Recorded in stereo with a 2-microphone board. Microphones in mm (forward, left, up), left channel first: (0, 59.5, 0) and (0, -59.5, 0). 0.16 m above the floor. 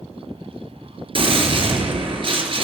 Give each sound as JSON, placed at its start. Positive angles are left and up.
{"t": 1.1, "sound": "a gunshot", "side_deg": -45, "distance_m": 2.5}